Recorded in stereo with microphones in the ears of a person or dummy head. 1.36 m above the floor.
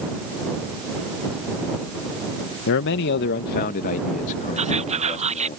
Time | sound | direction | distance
2.7 | a man speaking | 70° left (ahead or behind) | ?
4.6 | whispering | 40° right (ahead or behind) | ?